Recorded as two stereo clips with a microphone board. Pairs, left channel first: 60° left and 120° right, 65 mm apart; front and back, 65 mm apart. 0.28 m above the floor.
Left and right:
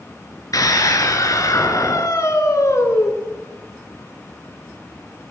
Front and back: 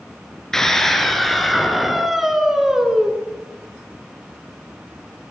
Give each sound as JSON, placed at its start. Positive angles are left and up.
{"t": 0.5, "sound": "a scream", "azimuth_deg": 80, "distance_m": 4.0}